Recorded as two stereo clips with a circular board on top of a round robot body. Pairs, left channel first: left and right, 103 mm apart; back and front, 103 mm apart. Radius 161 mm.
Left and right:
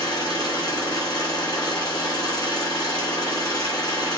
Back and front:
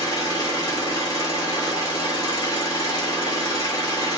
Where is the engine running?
130° left, 1.4 m.